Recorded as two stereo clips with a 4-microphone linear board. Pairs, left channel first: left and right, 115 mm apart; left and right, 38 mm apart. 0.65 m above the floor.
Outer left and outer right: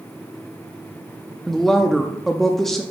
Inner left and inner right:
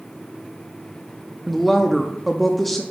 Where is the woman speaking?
5° left (ahead or behind), 0.6 m.